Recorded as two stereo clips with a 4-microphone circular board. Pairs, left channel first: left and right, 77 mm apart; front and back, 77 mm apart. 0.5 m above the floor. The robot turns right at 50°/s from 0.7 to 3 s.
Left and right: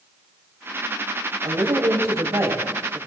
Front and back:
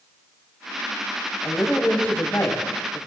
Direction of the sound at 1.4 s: 95° right.